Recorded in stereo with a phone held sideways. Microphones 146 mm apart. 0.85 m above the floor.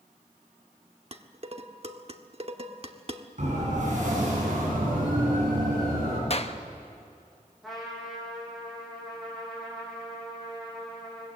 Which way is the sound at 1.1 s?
45° right (ahead or behind).